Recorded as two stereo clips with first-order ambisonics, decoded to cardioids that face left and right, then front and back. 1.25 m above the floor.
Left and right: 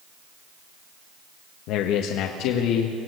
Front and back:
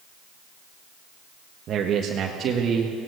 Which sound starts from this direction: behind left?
A man speaking, at 1.7 s.